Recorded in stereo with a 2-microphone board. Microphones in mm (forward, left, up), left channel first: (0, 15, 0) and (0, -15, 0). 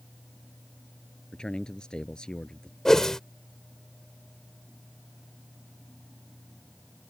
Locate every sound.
1.3 s a man speaking: 30° left (ahead or behind)
2.9 s a whoosh: 20° left (ahead or behind)